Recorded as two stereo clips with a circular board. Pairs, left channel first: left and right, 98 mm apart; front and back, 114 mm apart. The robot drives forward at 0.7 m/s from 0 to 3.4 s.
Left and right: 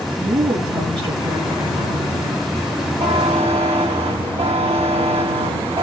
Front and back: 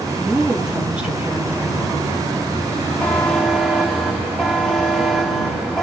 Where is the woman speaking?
95° right, 3 m; by 2.2 s 120° right, 3.5 m.